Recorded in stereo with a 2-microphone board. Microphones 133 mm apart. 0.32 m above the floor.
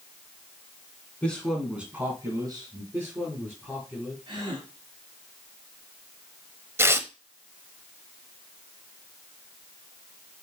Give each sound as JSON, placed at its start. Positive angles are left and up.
{"t": 1.2, "sound": "a man speaking", "side_deg": 10, "distance_m": 3.0}
{"t": 2.9, "sound": "a man speaking", "side_deg": -10, "distance_m": 4.0}
{"t": 4.3, "sound": "a gasp", "side_deg": -40, "distance_m": 3.0}
{"t": 6.8, "sound": "tearing paper", "side_deg": -20, "distance_m": 0.8}